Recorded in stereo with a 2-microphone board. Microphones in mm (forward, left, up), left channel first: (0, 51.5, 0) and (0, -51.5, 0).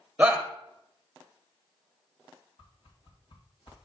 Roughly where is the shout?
Centre.